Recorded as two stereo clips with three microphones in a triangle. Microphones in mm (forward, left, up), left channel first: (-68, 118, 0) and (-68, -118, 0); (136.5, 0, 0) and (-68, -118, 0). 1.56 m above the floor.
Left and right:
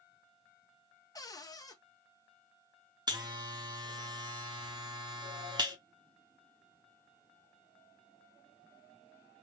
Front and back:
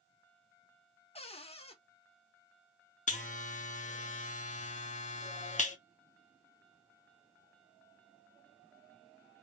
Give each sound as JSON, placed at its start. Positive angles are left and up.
{"t": 1.1, "sound": "a cupboard door", "azimuth_deg": 40, "distance_m": 0.6}
{"t": 3.1, "sound": "a buzzer", "azimuth_deg": -25, "distance_m": 0.7}